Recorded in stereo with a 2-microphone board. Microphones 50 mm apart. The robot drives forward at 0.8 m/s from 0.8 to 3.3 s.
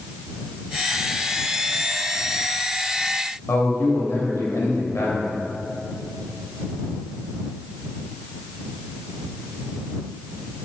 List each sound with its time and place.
3.5 s a man speaking: 65° left (ahead or behind), 2.5 m